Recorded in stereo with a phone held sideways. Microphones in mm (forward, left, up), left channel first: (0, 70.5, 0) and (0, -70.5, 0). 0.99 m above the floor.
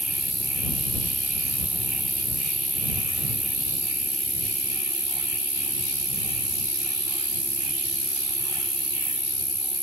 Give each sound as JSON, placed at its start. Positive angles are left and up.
{"t": 0.0, "sound": "an insect", "side_deg": -40}